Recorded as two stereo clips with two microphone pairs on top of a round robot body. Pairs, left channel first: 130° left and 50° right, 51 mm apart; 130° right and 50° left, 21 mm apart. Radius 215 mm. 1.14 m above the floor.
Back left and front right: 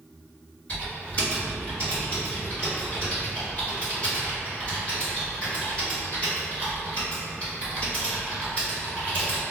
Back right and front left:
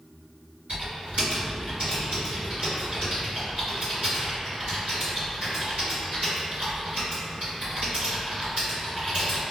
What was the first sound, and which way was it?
Typing on a keyboard, 75° left.